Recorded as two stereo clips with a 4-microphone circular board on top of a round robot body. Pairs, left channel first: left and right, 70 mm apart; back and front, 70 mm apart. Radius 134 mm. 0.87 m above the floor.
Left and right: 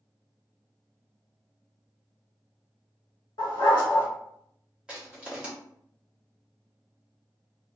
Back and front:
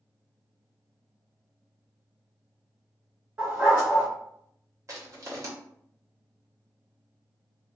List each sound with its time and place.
3.4 s a dog barking: 65° left, 1.1 m
4.9 s crushing: 20° right, 1.3 m